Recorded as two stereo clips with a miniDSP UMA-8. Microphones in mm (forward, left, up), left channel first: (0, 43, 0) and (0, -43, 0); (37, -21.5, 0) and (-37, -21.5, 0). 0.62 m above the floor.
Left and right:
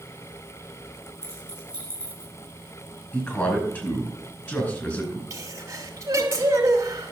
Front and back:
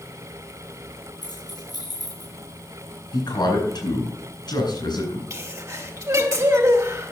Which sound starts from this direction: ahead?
A man speaking, at 3.1 s.